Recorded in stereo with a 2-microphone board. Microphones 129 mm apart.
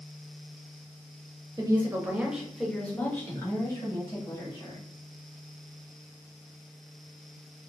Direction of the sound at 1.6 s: 30° right (ahead or behind).